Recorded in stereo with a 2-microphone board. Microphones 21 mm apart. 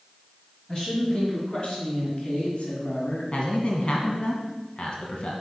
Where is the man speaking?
45° left (ahead or behind), 1.5 m.